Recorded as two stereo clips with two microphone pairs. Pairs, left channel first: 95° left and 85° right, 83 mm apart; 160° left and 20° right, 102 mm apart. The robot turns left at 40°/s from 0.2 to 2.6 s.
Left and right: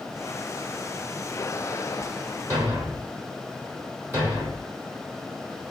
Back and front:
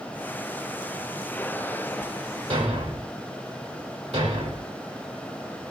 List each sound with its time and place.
2.5 s a thud: 15° right, 3 m; by 4.7 s 20° right, 3 m